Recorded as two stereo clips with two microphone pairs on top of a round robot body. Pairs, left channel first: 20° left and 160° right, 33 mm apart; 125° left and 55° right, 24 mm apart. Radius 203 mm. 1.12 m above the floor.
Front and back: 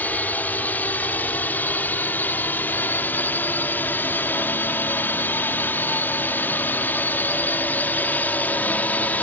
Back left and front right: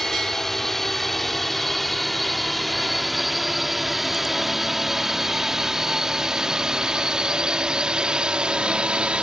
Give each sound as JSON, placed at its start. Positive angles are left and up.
{"t": 0.0, "sound": "a drone", "azimuth_deg": 50}